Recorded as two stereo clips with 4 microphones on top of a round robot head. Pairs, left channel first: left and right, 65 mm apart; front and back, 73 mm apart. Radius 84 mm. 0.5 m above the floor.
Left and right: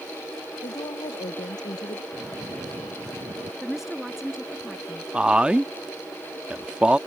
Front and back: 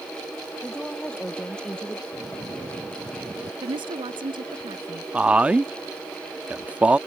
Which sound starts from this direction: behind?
A woman speaking, at 3.6 s.